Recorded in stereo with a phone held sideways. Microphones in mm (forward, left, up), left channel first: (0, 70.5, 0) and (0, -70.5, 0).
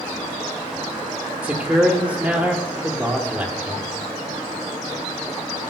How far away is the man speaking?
About 0.9 m.